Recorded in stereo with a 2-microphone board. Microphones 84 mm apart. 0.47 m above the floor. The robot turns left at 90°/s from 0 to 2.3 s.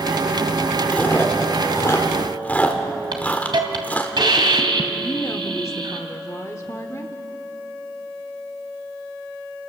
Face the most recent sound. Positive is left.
turn(degrees=40)  # may be behind; listen again after turning